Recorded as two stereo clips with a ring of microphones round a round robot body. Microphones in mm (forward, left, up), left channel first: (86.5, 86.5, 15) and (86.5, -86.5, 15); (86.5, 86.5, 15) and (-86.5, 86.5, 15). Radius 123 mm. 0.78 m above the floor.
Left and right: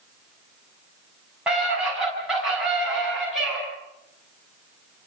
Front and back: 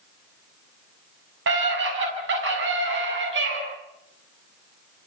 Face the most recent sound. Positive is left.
turn(degrees=180)